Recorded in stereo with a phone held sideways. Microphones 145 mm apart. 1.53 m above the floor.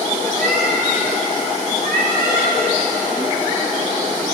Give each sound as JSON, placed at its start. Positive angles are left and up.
{"t": 0.3, "sound": "a cat meowing", "side_deg": -75, "distance_m": 4.0}